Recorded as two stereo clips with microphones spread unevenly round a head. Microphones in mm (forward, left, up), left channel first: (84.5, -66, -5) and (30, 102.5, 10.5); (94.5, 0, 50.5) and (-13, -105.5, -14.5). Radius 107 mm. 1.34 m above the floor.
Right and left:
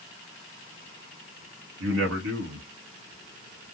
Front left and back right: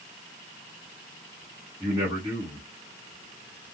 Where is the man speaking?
145° left, 0.8 m.